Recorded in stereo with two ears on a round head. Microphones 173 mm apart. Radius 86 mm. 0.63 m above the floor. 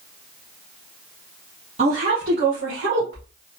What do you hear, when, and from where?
1.8 s a woman speaking: 40° right (ahead or behind), 1.4 m; by 3.3 s 70° right (ahead or behind), 3 m